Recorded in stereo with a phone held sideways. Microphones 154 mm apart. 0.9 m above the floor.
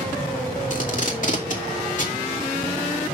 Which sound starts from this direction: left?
Tape being pulled, at 0.7 s.